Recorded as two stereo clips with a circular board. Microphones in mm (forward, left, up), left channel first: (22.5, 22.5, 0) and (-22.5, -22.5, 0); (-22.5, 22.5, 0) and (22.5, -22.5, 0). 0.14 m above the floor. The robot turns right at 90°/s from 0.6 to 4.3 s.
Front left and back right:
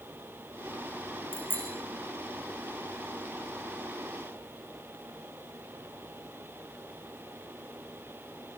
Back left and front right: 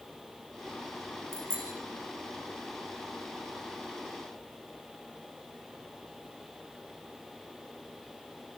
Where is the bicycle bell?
100° right, 8 m; by 1.7 s 70° right, 8 m.